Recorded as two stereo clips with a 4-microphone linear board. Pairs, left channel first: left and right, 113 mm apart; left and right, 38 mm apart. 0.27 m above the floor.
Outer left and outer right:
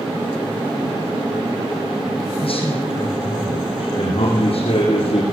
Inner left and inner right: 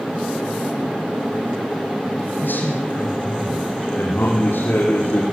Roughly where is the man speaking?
Left.